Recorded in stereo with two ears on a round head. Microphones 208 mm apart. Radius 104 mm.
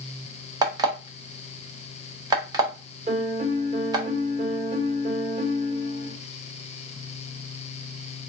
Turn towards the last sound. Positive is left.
turn(degrees=-25)  # may be behind; listen again after turning